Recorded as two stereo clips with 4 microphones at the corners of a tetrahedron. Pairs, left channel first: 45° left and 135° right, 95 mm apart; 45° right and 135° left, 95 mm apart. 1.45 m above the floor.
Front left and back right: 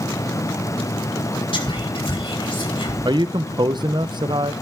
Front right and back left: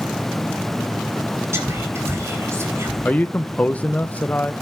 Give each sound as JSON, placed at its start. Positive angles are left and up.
{"t": 1.5, "sound": "whispering", "azimuth_deg": 75, "distance_m": 5.0}
{"t": 3.0, "sound": "a man speaking", "azimuth_deg": -115, "distance_m": 0.7}